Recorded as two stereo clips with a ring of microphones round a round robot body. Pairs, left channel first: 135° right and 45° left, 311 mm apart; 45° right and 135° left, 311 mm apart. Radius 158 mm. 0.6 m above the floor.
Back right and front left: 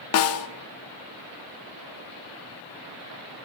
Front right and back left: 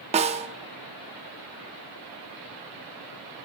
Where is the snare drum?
160° right, 0.5 m.